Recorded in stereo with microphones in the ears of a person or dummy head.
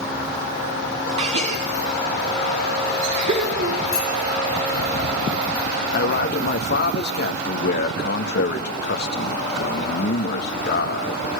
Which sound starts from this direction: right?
A gasp, at 1.2 s.